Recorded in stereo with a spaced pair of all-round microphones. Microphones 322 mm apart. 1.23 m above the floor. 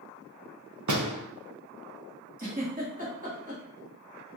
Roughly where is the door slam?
Right.